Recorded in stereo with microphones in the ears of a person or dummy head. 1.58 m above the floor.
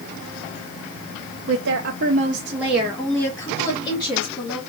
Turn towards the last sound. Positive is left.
turn(degrees=30)  # may be behind; listen again after turning